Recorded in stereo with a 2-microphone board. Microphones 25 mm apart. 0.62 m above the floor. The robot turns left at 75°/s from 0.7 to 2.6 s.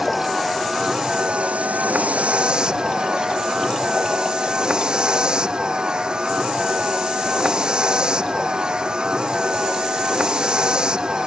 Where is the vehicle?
5° right; by 11.3 s 145° right.